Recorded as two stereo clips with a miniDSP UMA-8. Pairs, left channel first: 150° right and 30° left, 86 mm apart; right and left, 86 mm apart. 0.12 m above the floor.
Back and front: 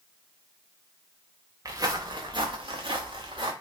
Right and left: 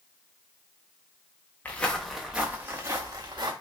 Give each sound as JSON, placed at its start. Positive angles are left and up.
{"t": 1.6, "sound": "footsteps", "azimuth_deg": -20, "distance_m": 0.7}